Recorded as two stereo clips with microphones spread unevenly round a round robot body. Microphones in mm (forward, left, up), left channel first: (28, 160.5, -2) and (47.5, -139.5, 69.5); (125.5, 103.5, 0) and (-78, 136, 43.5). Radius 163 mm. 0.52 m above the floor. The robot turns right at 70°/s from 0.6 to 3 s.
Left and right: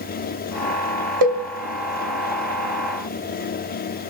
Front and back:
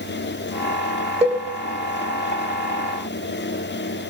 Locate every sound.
1.2 s a cowbell: 100° right, 3 m; by 1.4 s 80° right, 3 m